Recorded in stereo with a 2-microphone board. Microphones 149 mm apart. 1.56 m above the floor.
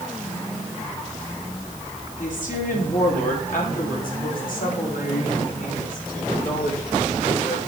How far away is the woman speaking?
About 3.5 m.